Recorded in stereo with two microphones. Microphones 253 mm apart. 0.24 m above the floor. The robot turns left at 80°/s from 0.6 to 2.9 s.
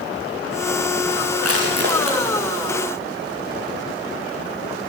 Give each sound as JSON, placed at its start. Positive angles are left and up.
{"t": 1.4, "sound": "crushing", "side_deg": -75, "distance_m": 6.5}